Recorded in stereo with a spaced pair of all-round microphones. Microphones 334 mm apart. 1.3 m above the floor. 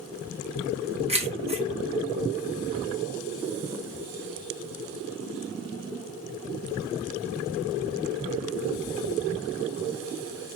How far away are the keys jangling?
About 1.0 m.